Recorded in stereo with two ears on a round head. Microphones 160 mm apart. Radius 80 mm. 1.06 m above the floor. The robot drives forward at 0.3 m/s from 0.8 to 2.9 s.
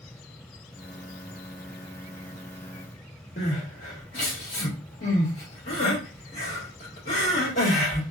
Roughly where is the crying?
Left.